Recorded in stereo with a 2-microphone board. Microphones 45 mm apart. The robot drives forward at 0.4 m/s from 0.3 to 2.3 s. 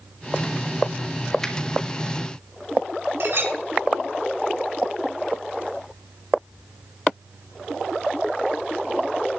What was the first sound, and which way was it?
A finger snap, 10° left (ahead or behind).